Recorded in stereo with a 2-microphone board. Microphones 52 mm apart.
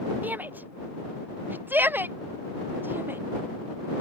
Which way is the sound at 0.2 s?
35° right (ahead or behind).